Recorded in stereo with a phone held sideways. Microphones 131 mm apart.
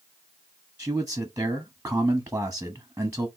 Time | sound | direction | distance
0.8 | a man speaking | 10° right (ahead or behind) | 0.8 m